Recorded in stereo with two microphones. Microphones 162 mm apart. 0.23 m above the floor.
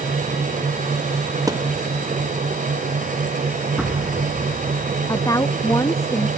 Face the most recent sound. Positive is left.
turn(degrees=20)  # may be behind; listen again after turning